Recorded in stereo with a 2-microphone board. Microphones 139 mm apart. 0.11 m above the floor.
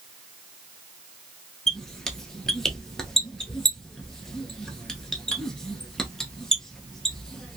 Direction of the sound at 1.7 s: 5° left (ahead or behind).